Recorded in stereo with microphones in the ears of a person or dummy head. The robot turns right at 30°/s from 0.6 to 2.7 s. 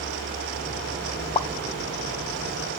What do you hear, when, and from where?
1.4 s a pop: 30° left (ahead or behind), 1.5 m; by 2.8 s 65° left (ahead or behind), 1.5 m